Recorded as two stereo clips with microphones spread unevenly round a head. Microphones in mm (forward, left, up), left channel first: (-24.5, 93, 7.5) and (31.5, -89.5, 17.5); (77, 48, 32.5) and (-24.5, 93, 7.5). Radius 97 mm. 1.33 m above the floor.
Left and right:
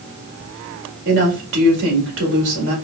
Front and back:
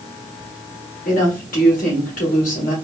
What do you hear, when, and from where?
1.1 s a woman speaking: 45° right, 2 m